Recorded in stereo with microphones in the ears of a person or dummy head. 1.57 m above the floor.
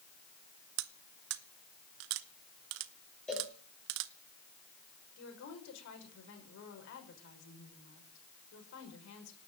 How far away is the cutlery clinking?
About 1.1 m.